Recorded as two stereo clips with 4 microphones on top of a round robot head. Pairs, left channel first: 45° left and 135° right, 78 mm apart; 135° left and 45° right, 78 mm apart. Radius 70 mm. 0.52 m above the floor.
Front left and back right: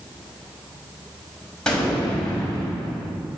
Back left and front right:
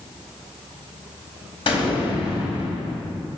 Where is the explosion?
130° left, 4 m.